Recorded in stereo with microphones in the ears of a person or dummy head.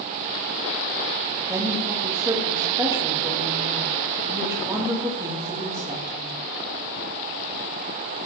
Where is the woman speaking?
25° right (ahead or behind), 2 m.